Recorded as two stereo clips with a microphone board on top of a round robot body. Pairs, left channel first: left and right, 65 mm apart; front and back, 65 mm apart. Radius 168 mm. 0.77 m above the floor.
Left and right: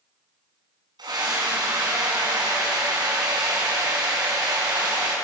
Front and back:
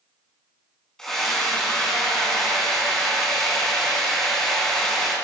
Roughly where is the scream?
Right.